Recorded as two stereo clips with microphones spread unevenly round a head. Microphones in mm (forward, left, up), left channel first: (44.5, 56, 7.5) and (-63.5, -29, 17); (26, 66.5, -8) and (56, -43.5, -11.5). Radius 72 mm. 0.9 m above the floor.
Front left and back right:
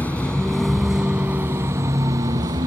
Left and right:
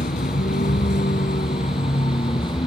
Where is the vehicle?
120° left; by 2.7 s 165° left.